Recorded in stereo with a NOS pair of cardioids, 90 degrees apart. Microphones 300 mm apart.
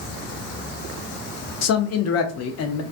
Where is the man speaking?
60° left, 0.6 m.